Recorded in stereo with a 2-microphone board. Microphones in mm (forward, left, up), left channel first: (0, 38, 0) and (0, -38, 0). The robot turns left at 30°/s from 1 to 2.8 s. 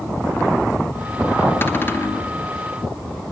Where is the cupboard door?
30° left (ahead or behind), 0.8 m.